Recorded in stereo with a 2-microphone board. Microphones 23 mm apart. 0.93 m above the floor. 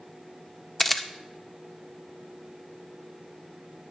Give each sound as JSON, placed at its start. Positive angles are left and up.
{"t": 0.8, "sound": "a camera shutter", "side_deg": 10, "distance_m": 0.6}